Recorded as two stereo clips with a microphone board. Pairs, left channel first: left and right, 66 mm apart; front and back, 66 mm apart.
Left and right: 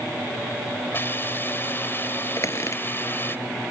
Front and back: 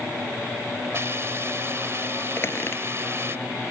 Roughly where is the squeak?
Ahead left.